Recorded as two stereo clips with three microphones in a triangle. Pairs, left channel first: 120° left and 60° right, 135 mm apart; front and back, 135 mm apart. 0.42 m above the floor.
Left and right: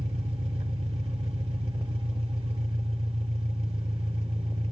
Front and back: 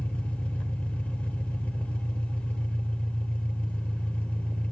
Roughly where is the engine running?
Right.